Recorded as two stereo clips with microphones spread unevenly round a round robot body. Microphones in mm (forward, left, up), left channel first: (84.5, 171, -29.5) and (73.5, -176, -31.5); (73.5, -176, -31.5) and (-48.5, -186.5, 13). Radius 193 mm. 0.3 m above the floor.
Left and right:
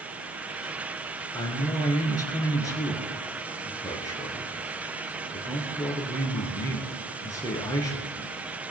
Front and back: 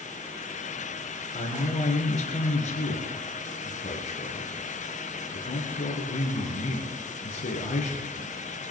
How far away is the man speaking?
About 4 m.